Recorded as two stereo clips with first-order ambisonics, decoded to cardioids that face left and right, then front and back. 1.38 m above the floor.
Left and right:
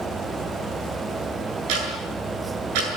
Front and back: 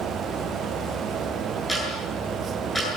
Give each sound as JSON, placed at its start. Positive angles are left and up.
{"t": 1.7, "sound": "ticking", "azimuth_deg": -85, "distance_m": 8.0}